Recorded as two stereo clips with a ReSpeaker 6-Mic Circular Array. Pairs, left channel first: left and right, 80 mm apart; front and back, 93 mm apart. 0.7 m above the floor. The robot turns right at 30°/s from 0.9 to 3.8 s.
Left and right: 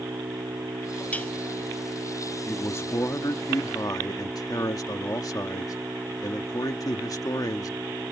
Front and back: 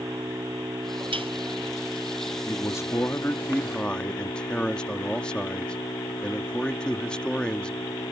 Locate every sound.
0.0 s an engine running: 125° right; by 8.1 s 35° right
1.1 s dishes clattering: 160° left; by 1.3 s 165° left
2.5 s a man speaking: 35° left; by 8.1 s 75° left